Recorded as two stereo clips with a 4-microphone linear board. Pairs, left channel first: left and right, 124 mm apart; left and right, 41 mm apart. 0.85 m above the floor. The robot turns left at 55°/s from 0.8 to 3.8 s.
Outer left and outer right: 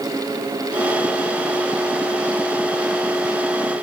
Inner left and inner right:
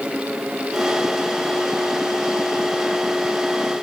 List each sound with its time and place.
Only background noise.